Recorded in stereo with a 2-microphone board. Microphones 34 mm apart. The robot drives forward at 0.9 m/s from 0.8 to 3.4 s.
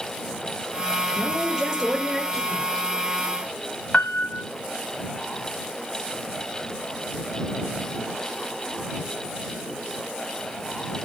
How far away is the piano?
About 0.7 m.